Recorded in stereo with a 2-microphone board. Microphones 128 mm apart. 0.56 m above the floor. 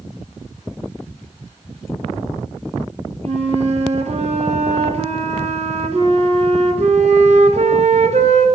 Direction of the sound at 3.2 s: 60° right (ahead or behind).